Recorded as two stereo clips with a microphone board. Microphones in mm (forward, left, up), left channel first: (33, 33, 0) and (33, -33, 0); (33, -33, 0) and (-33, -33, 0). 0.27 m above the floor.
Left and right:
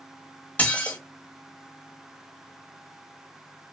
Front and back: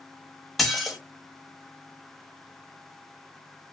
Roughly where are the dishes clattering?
Left.